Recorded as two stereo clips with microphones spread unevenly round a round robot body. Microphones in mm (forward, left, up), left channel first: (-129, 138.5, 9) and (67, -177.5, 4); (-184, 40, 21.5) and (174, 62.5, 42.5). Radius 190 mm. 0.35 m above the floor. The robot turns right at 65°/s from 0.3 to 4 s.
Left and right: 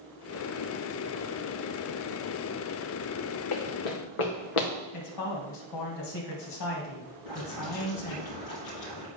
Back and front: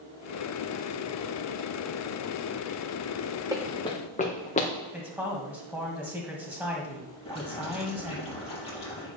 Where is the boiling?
110° left, 5 m.